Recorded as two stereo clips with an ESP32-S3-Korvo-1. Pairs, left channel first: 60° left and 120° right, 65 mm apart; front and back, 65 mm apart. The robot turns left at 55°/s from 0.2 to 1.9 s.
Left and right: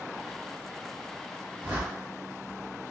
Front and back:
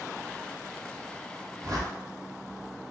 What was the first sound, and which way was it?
A whoosh, straight behind.